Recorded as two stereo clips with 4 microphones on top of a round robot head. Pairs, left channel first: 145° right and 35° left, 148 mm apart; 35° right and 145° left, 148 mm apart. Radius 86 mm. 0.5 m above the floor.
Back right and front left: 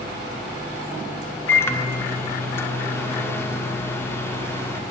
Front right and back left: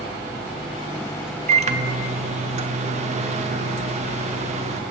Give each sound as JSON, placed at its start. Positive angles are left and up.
{"t": 1.5, "sound": "a microwave", "azimuth_deg": 145, "distance_m": 0.7}